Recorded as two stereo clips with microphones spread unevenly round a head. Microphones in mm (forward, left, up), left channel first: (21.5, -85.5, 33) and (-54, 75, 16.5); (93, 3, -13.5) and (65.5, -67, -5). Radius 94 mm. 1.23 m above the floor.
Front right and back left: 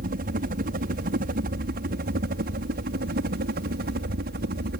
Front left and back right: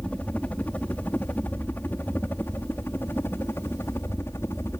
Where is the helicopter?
145° left; by 4.8 s 135° left.